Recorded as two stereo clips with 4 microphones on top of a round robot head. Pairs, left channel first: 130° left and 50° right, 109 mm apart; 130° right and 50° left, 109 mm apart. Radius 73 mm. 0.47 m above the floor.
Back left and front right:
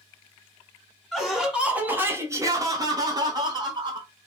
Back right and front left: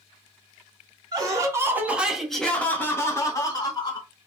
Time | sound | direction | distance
1.1 | laughter | 40° left | 1.6 m